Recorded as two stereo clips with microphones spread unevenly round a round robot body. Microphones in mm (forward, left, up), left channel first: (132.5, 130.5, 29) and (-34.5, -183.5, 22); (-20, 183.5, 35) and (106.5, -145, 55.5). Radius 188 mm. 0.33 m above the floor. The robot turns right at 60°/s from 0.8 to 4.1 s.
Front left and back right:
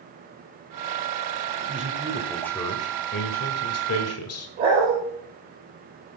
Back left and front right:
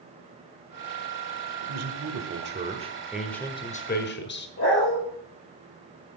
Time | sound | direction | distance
1.6 | a man speaking | 70° right | 1.6 m
4.6 | a dog barking | 175° left | 5.5 m